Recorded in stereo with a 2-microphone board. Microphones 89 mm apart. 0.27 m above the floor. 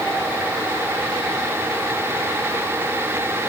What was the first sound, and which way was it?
Only background noise.